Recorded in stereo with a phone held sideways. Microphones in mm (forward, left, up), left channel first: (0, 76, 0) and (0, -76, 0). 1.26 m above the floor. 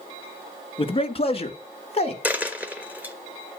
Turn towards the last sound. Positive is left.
turn(degrees=-10)  # may be behind; listen again after turning